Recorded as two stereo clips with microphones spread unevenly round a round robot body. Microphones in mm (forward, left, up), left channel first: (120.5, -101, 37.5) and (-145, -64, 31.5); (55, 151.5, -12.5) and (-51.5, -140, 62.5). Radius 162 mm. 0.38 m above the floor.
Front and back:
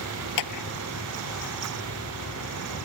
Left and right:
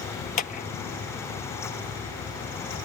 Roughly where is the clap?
Ahead.